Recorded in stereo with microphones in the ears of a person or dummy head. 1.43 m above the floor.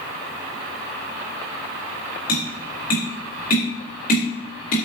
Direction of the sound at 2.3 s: 55° left (ahead or behind).